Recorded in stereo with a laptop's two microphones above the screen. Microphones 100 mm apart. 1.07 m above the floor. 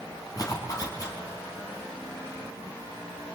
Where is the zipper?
35° left (ahead or behind), 4.5 m.